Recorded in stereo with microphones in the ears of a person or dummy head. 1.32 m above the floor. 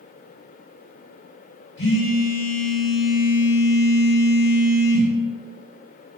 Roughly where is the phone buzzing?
Left.